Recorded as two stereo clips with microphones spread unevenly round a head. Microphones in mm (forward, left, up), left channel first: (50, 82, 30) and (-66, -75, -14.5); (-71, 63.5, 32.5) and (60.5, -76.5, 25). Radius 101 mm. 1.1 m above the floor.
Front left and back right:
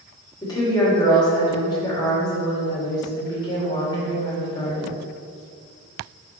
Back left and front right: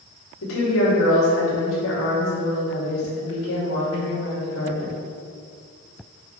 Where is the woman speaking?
125° left, 2.5 m.